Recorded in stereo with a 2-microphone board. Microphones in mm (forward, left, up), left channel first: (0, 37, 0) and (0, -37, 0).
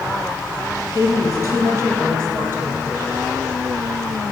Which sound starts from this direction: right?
A woman speaking, at 0.9 s.